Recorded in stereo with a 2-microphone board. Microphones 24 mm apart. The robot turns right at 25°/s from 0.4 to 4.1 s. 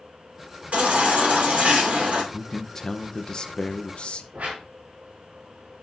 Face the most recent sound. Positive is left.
turn(degrees=-80)